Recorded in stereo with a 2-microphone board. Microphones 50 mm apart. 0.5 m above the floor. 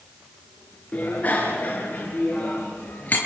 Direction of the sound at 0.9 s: 30° left (ahead or behind).